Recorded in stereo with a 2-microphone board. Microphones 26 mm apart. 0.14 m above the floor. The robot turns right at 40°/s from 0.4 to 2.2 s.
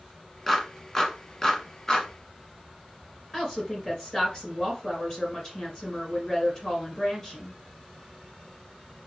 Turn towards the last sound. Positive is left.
turn(degrees=25)  # may be behind; listen again after turning